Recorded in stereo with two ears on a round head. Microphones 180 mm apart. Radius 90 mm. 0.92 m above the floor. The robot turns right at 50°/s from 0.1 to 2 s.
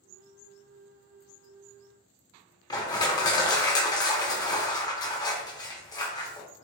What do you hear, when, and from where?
2.7 s crushing: 20° left (ahead or behind), 0.7 m